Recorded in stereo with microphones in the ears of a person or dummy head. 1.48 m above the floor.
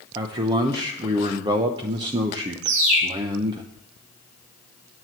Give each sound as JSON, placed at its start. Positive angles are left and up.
{"t": 0.1, "sound": "a man speaking", "side_deg": -25, "distance_m": 0.9}
{"t": 2.6, "sound": "a bird", "side_deg": -70, "distance_m": 5.0}